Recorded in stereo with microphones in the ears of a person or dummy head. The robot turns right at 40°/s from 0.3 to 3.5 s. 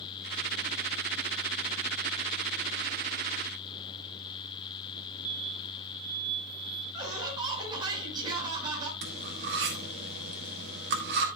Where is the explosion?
15° right (ahead or behind), 0.8 m.